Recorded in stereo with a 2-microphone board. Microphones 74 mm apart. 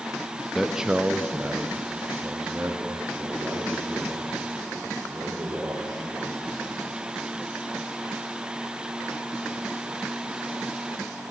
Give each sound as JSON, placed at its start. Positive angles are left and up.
{"t": 0.6, "sound": "a man speaking", "side_deg": -5, "distance_m": 0.7}